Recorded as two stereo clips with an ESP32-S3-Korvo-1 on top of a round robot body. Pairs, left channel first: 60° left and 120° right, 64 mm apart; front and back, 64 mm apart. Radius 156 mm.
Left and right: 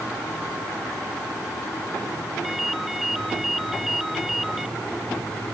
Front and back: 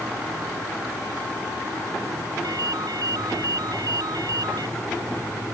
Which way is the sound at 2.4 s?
150° left.